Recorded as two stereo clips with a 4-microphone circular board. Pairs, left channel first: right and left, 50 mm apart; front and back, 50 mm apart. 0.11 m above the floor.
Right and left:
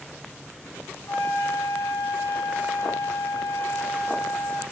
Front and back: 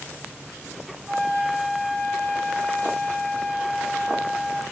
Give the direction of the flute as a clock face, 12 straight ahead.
4 o'clock.